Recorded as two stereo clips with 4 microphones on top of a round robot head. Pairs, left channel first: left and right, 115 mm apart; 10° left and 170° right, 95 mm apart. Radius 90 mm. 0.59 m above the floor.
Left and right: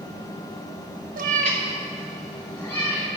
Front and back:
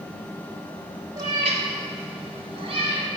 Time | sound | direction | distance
1.2 | a cat meowing | 105° right | 0.7 m